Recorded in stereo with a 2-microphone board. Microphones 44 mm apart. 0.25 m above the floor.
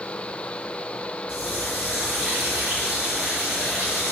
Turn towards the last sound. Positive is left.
turn(degrees=-25)  # may be behind; listen again after turning